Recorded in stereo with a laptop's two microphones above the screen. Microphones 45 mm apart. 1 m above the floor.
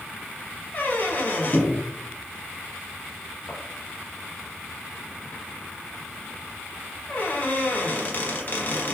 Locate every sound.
0.7 s a squeak: 35° left (ahead or behind), 0.9 m